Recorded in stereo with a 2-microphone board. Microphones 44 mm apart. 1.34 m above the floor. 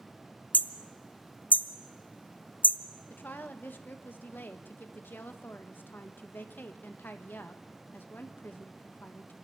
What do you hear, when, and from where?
0.5 s hammering: 45° left (ahead or behind), 0.6 m
3.1 s a woman speaking: 50° left (ahead or behind), 1.5 m